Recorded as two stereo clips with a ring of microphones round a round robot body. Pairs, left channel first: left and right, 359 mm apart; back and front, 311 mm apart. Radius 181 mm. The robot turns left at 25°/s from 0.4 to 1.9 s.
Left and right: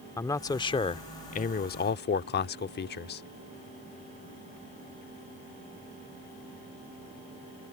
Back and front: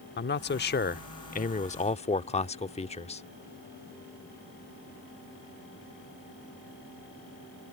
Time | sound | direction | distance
0.2 | a man speaking | 165° left | ?